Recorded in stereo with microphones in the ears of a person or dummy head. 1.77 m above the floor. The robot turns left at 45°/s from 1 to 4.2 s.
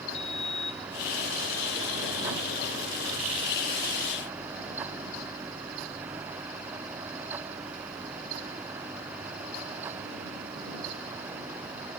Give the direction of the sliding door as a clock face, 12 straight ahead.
8 o'clock.